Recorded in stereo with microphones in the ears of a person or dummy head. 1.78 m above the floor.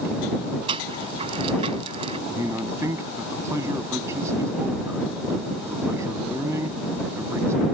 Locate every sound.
0.7 s a rattle: 35° right (ahead or behind)
2.3 s a man speaking: 20° right (ahead or behind)